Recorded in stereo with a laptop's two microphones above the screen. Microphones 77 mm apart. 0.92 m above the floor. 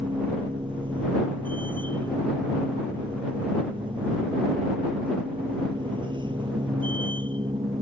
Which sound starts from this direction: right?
A machine running, at 0.0 s.